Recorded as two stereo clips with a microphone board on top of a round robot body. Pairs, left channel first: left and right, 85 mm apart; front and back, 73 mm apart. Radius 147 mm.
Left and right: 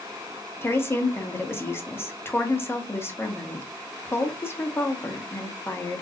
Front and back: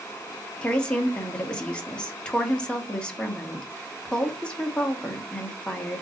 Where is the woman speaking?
65° left, 1.2 m.